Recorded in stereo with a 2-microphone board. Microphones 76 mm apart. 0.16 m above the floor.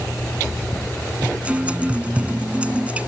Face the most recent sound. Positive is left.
turn(degrees=-20)  # may be behind; listen again after turning